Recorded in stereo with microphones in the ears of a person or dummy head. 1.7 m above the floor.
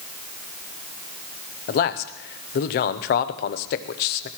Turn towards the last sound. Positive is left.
turn(degrees=50)  # may be behind; listen again after turning